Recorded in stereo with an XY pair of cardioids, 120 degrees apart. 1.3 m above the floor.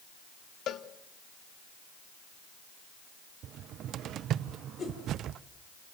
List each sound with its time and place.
0.7 s a cowbell: 60° left, 1.2 m
3.4 s a cupboard door: 65° right, 0.5 m
4.8 s a whoosh: 40° left, 4.5 m